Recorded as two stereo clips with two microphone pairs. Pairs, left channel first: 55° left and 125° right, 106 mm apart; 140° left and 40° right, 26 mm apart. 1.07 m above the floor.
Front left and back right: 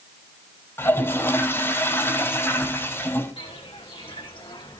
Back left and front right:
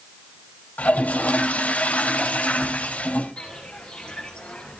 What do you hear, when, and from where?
0.8 s a toilet flushing: 120° left, 3.5 m
3.4 s footsteps: 80° left, 4.5 m; by 4.8 s 95° left, 3.5 m